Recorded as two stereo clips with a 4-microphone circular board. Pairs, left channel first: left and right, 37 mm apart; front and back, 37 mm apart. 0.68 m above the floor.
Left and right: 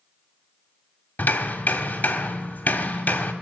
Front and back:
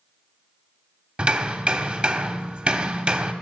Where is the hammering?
125° left, 1.2 m.